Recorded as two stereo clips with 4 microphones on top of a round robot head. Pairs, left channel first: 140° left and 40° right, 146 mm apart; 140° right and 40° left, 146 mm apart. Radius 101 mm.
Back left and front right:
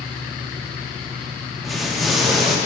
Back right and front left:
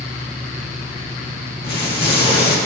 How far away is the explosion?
About 1.8 m.